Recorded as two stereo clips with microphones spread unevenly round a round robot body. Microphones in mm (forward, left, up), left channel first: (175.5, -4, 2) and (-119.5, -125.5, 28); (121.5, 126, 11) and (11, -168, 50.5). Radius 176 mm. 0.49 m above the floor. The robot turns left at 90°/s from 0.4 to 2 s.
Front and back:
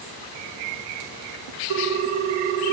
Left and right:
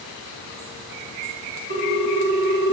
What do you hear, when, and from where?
1.7 s a ringtone: 170° right, 0.8 m; by 2.7 s 165° left, 0.8 m